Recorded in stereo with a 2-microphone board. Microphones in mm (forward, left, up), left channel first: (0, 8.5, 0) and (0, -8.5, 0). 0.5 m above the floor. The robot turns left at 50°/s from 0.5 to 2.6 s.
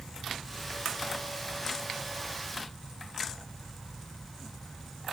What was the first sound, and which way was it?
Only background noise.